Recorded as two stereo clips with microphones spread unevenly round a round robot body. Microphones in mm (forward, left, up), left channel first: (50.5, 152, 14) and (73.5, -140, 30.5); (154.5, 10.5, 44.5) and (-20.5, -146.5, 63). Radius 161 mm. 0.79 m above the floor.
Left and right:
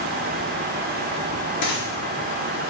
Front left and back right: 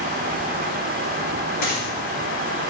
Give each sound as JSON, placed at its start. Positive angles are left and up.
{"t": 1.6, "sound": "a dropped coin", "azimuth_deg": 75, "distance_m": 3.5}